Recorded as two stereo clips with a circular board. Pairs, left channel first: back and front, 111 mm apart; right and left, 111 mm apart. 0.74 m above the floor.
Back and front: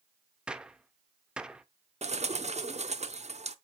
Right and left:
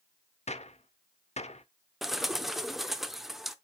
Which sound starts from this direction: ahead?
A bird, at 2.0 s.